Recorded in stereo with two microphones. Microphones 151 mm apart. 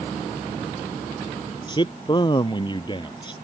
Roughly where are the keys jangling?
No keys jangling in this recording.